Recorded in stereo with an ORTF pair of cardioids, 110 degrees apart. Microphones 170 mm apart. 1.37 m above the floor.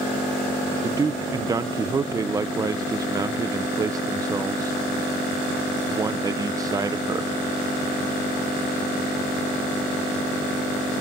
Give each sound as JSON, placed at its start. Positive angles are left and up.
{"t": 0.8, "sound": "a man speaking", "azimuth_deg": -20, "distance_m": 0.6}